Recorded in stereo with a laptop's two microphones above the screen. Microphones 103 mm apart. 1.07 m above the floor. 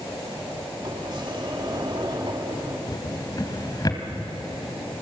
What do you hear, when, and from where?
0.8 s a sliding door: 45° right (ahead or behind), 2.5 m
2.9 s a drawer: 40° left (ahead or behind), 2 m